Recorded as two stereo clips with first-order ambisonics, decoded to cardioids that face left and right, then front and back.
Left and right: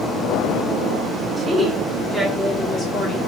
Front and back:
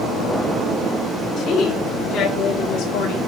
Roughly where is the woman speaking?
Ahead.